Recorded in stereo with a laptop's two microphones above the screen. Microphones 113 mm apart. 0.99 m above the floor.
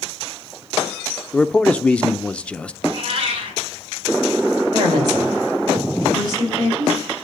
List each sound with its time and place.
1.3 s a man speaking: 10° left (ahead or behind), 0.6 m
2.8 s a cat meowing: 50° right (ahead or behind), 3 m
4.7 s a woman speaking: 40° right (ahead or behind), 4 m